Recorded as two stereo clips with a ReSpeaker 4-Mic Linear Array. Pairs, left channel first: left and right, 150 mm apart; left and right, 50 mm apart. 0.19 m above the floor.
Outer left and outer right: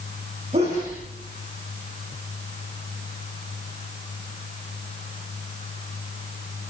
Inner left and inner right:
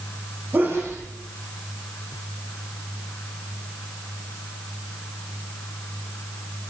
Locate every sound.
0.5 s a sneeze: 45° right (ahead or behind), 7 m